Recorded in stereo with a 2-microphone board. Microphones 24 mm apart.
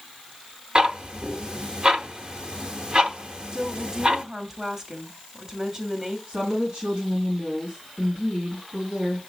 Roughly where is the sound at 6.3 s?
Right.